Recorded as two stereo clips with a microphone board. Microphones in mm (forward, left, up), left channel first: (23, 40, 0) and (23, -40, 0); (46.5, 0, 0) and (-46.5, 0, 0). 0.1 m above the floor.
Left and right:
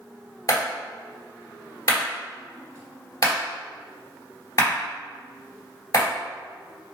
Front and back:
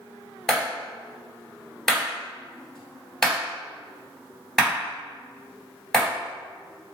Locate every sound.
0.5 s a clap: 80° left, 1.9 m